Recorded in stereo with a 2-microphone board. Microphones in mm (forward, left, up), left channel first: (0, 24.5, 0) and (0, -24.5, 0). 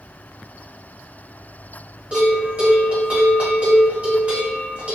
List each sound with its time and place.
2.1 s a bell: 30° right (ahead or behind), 1.5 m